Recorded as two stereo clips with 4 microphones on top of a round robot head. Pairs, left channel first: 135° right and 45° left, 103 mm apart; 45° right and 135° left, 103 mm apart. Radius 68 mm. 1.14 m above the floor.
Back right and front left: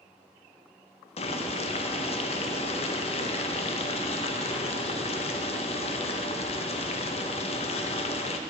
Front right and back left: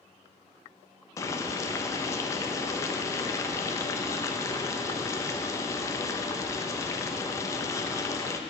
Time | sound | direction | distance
1.2 | boiling | 105° right | 0.8 m